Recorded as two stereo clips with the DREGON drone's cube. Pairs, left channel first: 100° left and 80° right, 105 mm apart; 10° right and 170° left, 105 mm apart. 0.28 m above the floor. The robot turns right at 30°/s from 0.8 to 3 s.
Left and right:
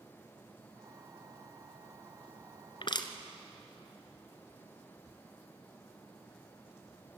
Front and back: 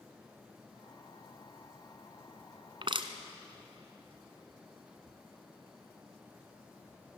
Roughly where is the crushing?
Behind left.